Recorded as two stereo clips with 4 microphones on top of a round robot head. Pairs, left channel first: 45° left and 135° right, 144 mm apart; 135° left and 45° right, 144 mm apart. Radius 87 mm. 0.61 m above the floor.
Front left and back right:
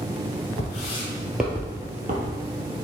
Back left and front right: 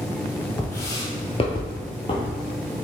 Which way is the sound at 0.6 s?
60° left.